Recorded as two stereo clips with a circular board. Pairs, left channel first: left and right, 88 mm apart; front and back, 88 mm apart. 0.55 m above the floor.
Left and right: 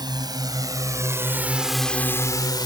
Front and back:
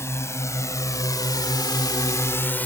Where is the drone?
55° right; by 2.7 s 70° left.